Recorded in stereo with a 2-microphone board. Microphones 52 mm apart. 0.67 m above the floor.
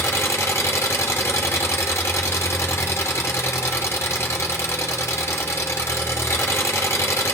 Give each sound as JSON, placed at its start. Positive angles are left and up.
{"t": 0.0, "sound": "an engine running", "side_deg": 65, "distance_m": 0.9}